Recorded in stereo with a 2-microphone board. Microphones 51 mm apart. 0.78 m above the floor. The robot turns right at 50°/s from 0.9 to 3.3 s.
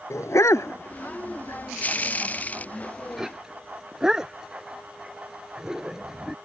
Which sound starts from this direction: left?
A dog barking, at 0.1 s.